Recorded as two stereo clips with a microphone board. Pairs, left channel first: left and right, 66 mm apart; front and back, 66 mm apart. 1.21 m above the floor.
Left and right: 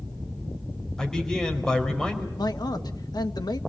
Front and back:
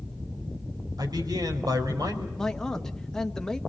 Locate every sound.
1.0 s a man speaking: 170° left, 4.5 m
2.4 s a man speaking: 80° left, 1.2 m